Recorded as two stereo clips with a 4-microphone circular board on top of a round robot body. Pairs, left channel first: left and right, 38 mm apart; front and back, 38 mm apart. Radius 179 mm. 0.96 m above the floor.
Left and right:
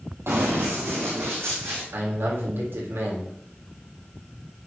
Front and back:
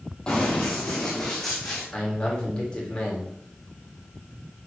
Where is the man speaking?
70° right, 4 m.